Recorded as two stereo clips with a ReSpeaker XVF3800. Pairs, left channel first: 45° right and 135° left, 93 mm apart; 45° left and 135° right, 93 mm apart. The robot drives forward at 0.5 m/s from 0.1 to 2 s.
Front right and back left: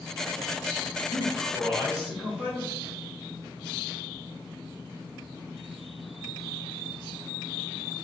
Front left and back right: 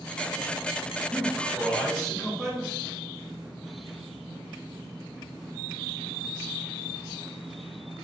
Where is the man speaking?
50° left, 1.1 m; by 2.8 s 125° left, 1.1 m.